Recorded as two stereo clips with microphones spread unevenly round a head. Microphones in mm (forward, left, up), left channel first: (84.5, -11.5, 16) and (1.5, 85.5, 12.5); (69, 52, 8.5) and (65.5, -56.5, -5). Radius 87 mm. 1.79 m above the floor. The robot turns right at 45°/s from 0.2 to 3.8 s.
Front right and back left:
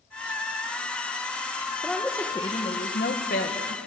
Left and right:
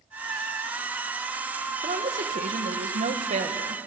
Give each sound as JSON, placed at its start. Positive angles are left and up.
{"t": 1.8, "sound": "a woman speaking", "azimuth_deg": -140, "distance_m": 2.0}